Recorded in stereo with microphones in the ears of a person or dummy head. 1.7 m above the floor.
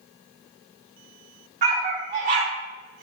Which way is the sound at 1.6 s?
30° right (ahead or behind).